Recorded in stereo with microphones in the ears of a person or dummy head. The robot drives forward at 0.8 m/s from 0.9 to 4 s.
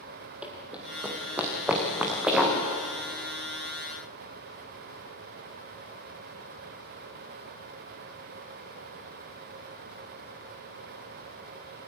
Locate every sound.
0.4 s running footsteps: 5° right (ahead or behind), 1.8 m